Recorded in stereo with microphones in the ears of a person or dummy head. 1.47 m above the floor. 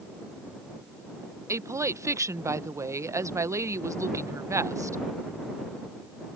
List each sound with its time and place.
1.5 s a woman speaking: 15° right (ahead or behind)